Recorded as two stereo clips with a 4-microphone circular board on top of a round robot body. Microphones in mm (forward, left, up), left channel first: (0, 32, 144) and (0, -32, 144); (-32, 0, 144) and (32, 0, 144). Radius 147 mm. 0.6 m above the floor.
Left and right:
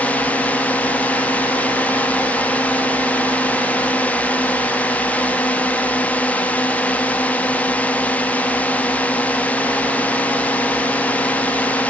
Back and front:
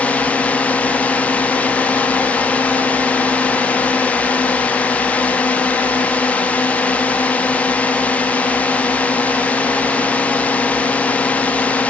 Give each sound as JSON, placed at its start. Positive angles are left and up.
{"t": 0.0, "sound": "a drone", "azimuth_deg": 135}